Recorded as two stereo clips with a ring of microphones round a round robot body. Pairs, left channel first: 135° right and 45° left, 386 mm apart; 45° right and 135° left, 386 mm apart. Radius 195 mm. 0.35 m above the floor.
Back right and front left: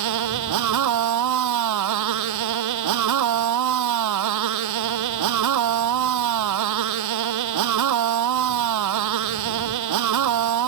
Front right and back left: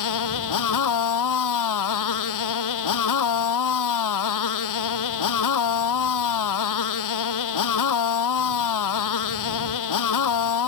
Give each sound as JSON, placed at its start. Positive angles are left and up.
{"t": 0.0, "sound": "a motorcycle", "azimuth_deg": 0}